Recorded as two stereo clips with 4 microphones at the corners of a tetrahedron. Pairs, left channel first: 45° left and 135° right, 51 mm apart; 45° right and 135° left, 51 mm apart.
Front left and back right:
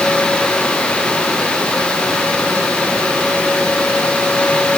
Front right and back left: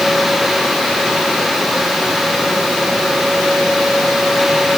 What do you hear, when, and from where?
Only background noise.